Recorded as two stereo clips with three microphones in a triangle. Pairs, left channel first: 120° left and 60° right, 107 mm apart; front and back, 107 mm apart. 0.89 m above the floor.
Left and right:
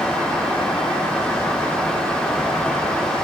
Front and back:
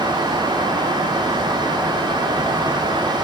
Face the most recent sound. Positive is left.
No sound to turn to.